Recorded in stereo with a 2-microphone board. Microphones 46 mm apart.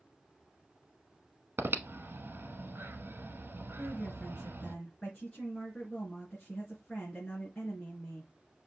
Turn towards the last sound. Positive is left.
turn(degrees=20)  # may be behind; listen again after turning